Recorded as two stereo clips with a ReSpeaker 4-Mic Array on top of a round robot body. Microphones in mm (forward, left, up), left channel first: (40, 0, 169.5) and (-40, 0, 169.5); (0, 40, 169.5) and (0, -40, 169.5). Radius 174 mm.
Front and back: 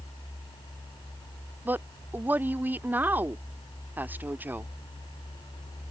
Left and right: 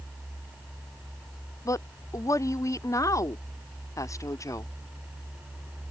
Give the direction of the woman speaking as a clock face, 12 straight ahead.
8 o'clock.